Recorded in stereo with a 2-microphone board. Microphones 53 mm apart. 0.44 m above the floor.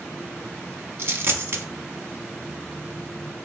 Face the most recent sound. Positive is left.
turn(degrees=-50)  # may be behind; listen again after turning